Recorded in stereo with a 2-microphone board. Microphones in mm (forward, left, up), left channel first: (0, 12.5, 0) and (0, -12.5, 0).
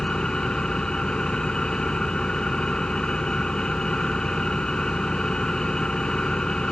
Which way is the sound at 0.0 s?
35° left (ahead or behind).